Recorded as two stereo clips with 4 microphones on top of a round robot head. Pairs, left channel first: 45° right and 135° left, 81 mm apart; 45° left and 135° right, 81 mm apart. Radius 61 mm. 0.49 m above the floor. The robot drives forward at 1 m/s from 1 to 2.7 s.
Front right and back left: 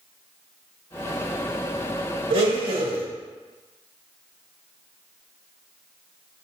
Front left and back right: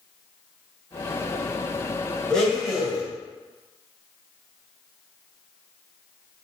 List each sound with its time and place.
2.3 s a blender: 125° left, 1.5 m; by 3.1 s 135° left, 1.8 m